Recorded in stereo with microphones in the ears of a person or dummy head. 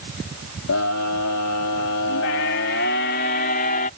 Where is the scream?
85° left; by 3.9 s 45° left (ahead or behind).